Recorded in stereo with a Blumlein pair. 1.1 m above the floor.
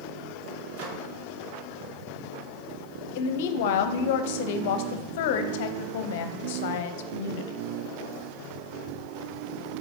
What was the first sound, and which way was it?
A microwave, 45° right.